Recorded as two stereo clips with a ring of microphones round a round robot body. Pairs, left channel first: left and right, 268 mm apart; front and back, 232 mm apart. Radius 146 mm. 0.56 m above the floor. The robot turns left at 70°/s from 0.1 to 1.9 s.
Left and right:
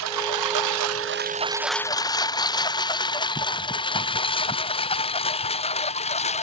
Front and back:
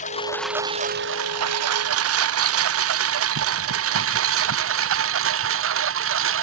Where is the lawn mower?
65° right; by 6.4 s 155° left.